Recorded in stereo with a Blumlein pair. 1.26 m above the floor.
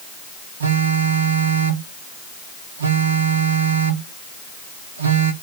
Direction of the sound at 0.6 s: 70° right.